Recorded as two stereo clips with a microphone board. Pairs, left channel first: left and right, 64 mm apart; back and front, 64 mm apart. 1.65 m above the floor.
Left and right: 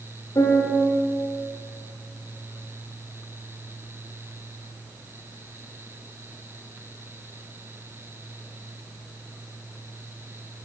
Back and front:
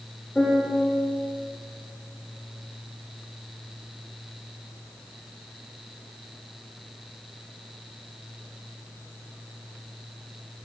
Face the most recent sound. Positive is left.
turn(degrees=100)